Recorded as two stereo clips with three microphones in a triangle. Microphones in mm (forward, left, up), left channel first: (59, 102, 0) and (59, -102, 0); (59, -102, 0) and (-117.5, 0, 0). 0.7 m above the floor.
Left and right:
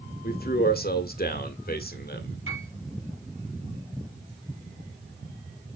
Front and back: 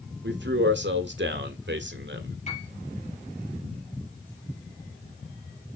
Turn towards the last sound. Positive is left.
turn(degrees=-85)